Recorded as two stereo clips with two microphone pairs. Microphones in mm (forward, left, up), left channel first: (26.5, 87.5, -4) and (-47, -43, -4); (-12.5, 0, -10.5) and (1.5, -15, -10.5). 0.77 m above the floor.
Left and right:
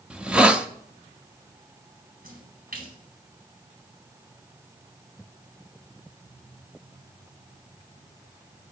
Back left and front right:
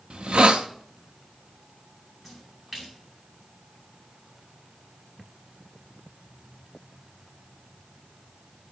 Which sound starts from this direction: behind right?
A splash, at 2.2 s.